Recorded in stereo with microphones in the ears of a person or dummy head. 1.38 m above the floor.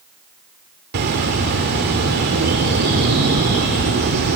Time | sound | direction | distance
0.9 | a bird | 55° right (ahead or behind) | 1.9 m